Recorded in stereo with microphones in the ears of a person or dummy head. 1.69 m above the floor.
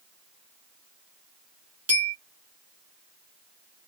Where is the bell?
10° right (ahead or behind), 1.9 m.